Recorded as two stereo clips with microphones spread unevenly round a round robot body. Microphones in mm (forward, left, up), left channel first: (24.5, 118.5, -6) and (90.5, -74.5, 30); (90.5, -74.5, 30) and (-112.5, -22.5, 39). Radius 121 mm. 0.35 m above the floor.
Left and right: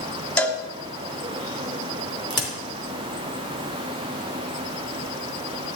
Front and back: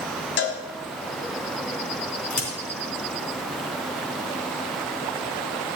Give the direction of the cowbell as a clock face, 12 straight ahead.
11 o'clock.